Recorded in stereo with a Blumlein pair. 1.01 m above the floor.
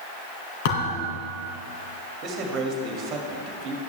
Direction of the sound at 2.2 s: 30° right.